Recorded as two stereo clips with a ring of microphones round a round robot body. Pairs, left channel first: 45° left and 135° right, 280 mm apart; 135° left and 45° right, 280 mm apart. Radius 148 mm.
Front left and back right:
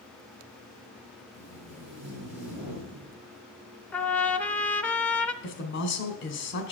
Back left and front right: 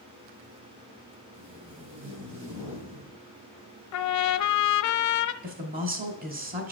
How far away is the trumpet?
About 0.6 m.